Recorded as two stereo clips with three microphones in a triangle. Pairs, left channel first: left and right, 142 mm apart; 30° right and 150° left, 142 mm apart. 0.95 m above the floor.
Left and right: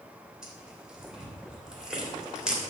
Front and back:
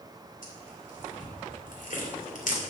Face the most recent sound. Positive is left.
turn(degrees=-5)